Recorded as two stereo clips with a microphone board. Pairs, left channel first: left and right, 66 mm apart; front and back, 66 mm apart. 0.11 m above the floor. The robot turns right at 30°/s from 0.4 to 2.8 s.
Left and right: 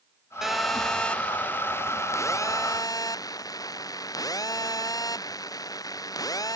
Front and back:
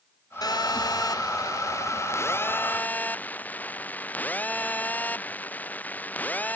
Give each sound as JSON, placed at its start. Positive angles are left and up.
{"t": 0.4, "sound": "a phone buzzing", "azimuth_deg": -5}